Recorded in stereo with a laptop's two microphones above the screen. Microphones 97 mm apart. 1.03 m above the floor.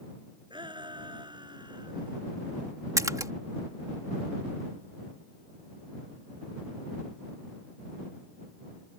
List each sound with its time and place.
0.5 s a shout: 55° right (ahead or behind); by 2.2 s 50° right (ahead or behind)
3.0 s a splash: 35° right (ahead or behind)